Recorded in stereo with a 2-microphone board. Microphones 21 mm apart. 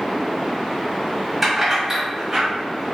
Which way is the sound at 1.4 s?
5° right (ahead or behind).